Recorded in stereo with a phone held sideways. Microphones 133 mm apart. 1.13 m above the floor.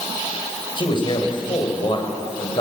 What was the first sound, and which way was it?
A man speaking, 40° left (ahead or behind).